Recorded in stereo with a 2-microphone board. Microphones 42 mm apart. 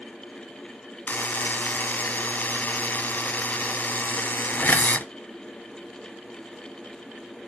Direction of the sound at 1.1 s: 50° left (ahead or behind).